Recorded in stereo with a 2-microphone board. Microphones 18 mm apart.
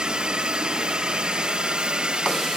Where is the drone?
55° right (ahead or behind).